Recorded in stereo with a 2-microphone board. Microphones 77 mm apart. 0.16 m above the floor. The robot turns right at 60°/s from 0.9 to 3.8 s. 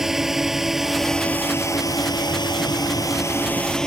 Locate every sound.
0.0 s a drone: 5° right (ahead or behind); by 3.9 s 10° left (ahead or behind)